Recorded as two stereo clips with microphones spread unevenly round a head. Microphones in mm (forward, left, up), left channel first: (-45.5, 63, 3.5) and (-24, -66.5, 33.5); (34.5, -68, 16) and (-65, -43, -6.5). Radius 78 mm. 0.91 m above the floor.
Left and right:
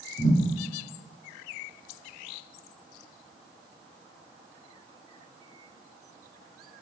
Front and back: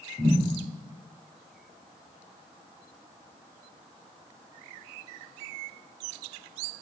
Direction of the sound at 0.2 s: 95° left.